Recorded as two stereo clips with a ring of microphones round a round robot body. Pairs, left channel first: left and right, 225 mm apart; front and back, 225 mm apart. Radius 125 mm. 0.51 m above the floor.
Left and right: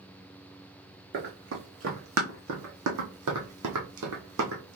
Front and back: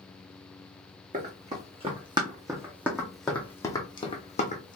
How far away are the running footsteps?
About 1.8 m.